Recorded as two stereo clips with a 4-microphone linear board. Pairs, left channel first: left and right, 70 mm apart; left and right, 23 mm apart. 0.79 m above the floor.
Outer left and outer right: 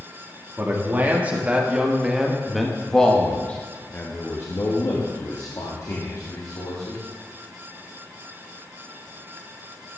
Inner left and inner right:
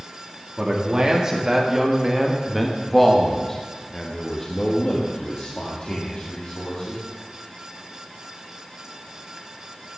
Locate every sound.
0.6 s a man speaking: 30° right (ahead or behind), 1.8 m; by 7.0 s 65° left (ahead or behind), 2 m